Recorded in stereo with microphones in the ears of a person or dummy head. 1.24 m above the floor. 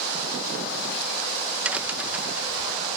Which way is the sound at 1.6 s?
5° right (ahead or behind).